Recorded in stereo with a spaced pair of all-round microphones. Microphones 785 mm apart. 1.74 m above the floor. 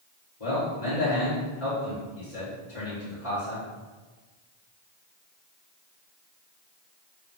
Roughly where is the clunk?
I don't hear a clunk.